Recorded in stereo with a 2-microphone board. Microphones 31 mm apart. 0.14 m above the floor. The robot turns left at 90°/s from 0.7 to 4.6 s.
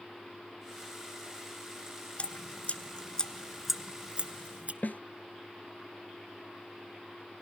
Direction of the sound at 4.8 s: 65° left (ahead or behind).